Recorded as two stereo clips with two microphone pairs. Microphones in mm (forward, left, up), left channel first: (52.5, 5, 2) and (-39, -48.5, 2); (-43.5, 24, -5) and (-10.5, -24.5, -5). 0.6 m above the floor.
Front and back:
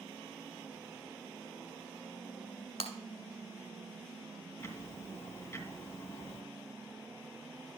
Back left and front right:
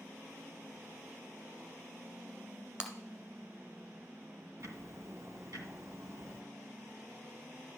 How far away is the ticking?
About 2 m.